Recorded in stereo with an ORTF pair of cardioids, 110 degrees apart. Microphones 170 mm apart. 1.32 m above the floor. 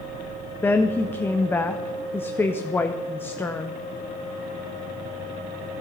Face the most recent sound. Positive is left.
turn(degrees=15)